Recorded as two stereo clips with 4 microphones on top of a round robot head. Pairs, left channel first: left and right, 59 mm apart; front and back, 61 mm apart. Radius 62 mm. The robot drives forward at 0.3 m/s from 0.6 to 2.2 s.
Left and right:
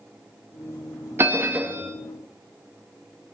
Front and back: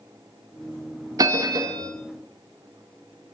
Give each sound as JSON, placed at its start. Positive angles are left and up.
{"t": 1.2, "sound": "a bell", "azimuth_deg": -150, "distance_m": 0.5}